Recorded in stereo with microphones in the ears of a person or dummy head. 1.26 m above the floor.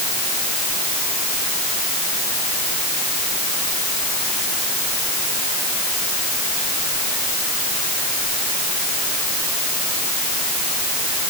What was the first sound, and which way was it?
Only background noise.